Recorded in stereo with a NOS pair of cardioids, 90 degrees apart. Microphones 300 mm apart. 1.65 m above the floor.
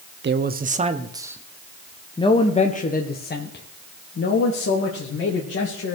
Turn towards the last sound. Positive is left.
turn(degrees=55)